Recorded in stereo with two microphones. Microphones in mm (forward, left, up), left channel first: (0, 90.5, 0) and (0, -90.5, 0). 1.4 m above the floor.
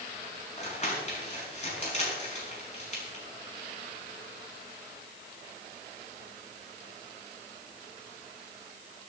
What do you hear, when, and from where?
0.6 s crumpling: 40° left (ahead or behind), 5.5 m